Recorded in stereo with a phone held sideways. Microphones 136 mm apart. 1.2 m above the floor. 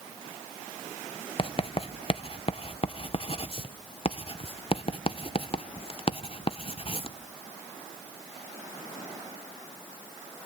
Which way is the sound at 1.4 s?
40° left (ahead or behind).